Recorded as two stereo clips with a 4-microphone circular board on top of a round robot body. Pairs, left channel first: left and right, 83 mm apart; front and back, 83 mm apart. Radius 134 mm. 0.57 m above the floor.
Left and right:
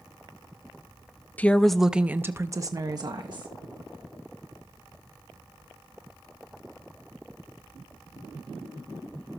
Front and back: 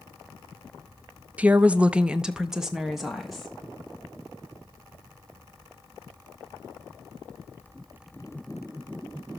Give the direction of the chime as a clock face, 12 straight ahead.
No chime in this recording.